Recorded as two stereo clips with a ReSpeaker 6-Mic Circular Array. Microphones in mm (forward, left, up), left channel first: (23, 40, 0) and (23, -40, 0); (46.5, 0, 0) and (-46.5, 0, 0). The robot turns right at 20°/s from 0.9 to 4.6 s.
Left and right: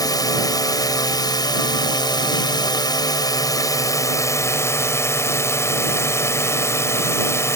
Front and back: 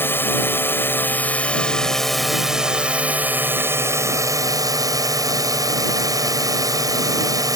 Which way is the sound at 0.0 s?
65° left.